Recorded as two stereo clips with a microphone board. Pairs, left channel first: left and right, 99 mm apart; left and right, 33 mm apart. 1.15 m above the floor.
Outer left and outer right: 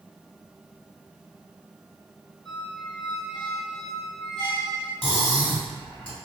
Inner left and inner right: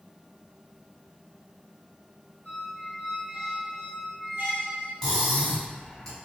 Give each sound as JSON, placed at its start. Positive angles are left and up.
{"t": 2.5, "sound": "a squeak", "side_deg": -50, "distance_m": 1.6}
{"t": 5.0, "sound": "cutlery clinking", "side_deg": 20, "distance_m": 1.4}